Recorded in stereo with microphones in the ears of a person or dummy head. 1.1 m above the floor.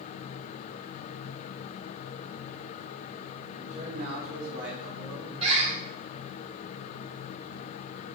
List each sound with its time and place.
3.6 s a man speaking: 40° right (ahead or behind), 2 m; by 5.3 s 65° right (ahead or behind), 1.7 m
5.4 s a bird: 35° right (ahead or behind), 2 m